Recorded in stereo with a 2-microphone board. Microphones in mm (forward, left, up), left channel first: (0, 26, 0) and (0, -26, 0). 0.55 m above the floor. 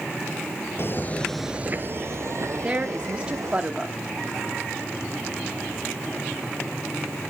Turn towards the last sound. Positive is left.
turn(degrees=-20)  # may be behind; listen again after turning